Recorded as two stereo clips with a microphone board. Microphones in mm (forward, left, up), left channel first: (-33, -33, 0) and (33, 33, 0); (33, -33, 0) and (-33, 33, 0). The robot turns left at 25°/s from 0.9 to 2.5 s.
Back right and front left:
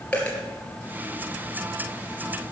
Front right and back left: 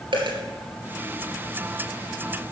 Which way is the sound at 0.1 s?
150° left.